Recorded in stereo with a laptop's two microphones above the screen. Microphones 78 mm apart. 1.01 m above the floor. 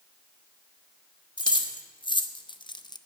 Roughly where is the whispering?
I don't hear whispering.